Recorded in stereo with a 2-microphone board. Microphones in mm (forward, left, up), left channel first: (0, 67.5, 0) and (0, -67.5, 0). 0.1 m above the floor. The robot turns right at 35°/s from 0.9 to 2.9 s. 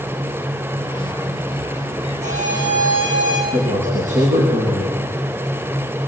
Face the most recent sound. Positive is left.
turn(degrees=-70)  # may be behind; listen again after turning